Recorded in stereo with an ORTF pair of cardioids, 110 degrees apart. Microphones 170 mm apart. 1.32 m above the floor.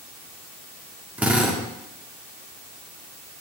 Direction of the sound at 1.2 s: 10° right.